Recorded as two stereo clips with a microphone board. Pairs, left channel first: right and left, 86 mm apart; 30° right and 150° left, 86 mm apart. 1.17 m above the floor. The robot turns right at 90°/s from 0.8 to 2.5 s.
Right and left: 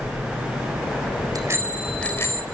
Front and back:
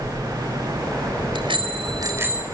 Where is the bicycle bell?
130° left, 4 m; by 2.4 s 130° right, 4 m.